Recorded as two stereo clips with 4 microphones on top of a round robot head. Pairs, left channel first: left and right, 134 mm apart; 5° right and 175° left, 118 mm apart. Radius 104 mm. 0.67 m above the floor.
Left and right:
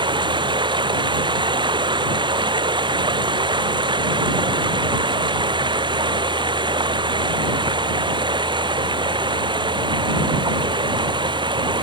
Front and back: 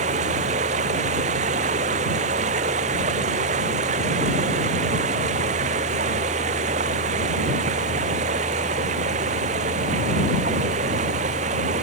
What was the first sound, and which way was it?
Running water, 145° right.